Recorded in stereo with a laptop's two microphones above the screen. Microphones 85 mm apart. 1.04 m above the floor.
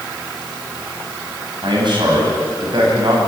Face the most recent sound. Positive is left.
turn(degrees=-65)  # may be behind; listen again after turning